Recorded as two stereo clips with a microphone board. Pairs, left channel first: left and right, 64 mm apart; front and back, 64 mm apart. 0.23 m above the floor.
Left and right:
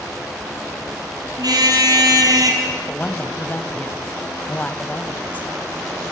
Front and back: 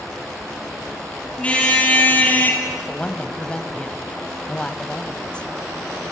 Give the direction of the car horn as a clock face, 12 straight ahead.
2 o'clock.